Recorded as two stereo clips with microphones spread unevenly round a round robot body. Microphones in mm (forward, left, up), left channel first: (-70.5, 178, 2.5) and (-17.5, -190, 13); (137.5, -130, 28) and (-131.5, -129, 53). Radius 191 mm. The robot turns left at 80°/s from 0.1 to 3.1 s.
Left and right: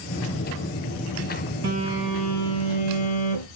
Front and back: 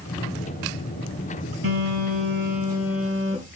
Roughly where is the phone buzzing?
Behind right.